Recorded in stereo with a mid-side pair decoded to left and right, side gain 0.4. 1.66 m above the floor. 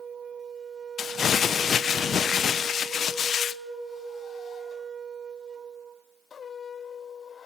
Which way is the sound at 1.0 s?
60° left.